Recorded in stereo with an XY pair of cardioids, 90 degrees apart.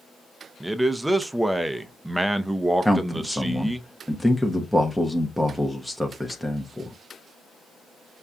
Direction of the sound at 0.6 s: 10° right.